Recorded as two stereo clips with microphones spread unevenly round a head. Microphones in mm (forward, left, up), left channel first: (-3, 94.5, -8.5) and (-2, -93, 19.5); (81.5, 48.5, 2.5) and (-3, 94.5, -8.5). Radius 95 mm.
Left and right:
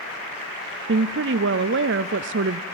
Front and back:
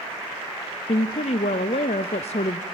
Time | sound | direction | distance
0.9 | a woman speaking | 60° right | 0.6 m